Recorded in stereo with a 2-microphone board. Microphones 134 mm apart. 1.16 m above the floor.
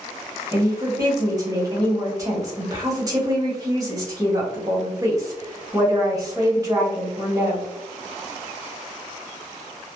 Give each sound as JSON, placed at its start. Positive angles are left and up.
{"t": 0.5, "sound": "a woman speaking", "side_deg": -25, "distance_m": 1.1}